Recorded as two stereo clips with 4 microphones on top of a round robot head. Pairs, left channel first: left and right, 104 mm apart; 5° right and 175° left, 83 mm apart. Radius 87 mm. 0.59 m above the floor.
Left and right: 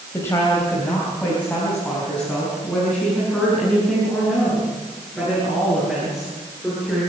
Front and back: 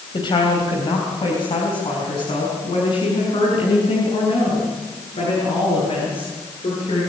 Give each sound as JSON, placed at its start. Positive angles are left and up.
{"t": 0.1, "sound": "a woman speaking", "azimuth_deg": 20, "distance_m": 3.5}